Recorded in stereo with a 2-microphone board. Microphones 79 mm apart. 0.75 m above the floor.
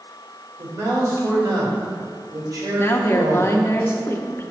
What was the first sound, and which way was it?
A man speaking, 55° right (ahead or behind).